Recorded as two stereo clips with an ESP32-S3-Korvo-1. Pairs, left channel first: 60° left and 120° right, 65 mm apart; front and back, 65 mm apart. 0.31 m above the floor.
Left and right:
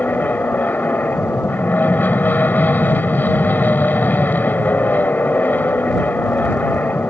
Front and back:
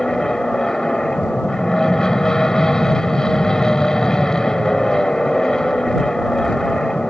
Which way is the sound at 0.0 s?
70° left.